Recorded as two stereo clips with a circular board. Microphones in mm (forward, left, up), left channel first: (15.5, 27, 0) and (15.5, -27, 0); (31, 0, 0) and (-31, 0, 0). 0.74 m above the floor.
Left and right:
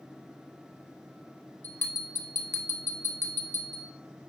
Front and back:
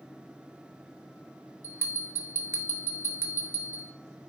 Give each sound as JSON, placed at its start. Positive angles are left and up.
{"t": 1.6, "sound": "a bell", "azimuth_deg": 135, "distance_m": 1.3}